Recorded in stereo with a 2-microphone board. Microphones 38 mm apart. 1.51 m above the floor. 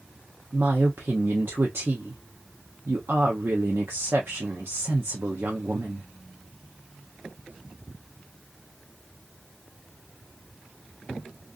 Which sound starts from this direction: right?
A woman speaking, at 0.5 s.